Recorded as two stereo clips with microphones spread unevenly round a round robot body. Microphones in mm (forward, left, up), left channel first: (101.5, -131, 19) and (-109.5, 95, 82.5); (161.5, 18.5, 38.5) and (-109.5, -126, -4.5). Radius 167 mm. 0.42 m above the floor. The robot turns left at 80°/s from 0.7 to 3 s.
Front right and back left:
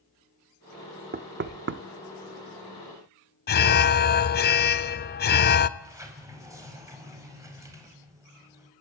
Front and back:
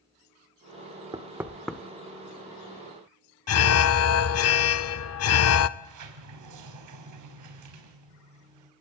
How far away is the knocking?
About 0.8 m.